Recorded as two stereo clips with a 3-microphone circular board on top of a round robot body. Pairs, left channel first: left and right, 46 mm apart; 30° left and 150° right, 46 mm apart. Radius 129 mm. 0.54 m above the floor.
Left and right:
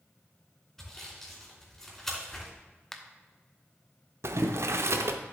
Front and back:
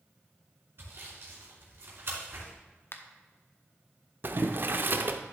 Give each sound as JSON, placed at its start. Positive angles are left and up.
{"t": 0.8, "sound": "sawing", "azimuth_deg": 170, "distance_m": 3.0}
{"t": 2.9, "sound": "a finger snap", "azimuth_deg": 10, "distance_m": 1.1}
{"t": 4.2, "sound": "boiling", "azimuth_deg": -105, "distance_m": 0.7}